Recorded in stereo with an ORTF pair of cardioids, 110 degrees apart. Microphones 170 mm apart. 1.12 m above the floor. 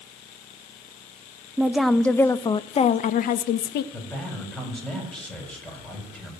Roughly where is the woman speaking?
Ahead.